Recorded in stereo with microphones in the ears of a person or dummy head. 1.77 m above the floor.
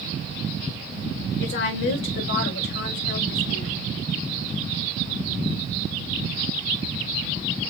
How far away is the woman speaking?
About 1.9 m.